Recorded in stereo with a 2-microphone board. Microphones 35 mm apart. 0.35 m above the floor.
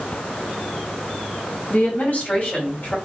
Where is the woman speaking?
50° left (ahead or behind), 2.5 m.